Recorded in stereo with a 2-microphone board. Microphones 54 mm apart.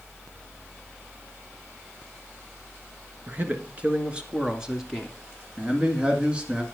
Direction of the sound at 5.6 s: 20° right (ahead or behind).